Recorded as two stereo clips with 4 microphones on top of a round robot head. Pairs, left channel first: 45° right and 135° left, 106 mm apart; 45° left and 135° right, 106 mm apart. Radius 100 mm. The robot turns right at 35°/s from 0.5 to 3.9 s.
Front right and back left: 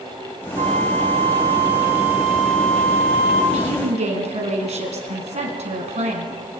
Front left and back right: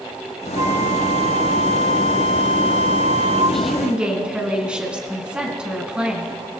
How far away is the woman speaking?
About 4 m.